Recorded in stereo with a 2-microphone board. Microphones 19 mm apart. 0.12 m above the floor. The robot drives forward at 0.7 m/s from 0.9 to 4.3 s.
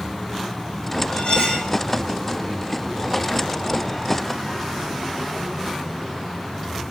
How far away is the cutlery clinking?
About 3 m.